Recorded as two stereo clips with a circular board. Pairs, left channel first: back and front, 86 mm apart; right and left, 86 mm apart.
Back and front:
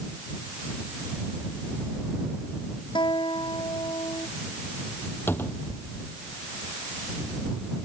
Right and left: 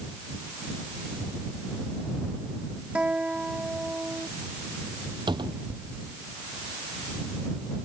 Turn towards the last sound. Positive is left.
turn(degrees=115)